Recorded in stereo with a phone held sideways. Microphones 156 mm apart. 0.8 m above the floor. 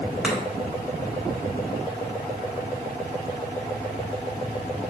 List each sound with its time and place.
0.2 s chopping: 5° right (ahead or behind), 0.9 m